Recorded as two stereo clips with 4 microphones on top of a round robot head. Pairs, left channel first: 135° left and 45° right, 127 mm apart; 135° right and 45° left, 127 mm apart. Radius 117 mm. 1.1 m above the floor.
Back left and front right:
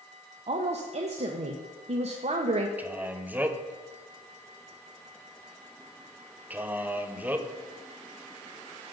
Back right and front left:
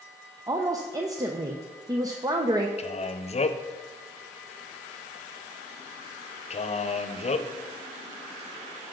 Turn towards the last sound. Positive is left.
turn(degrees=-120)